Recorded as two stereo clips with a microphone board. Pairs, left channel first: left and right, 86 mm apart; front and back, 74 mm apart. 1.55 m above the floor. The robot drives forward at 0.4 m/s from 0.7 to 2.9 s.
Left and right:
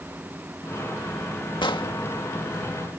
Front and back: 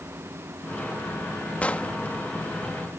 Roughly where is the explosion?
Left.